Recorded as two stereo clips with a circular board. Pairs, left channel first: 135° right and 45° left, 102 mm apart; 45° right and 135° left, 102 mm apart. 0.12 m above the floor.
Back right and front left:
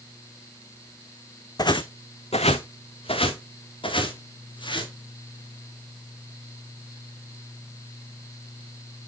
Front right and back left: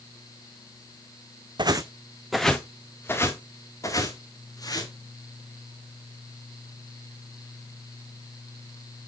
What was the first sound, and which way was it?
Footsteps, 175° left.